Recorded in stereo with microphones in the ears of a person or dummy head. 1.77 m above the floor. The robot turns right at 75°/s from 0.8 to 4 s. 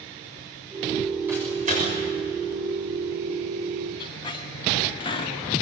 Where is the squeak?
25° left (ahead or behind), 1.5 m.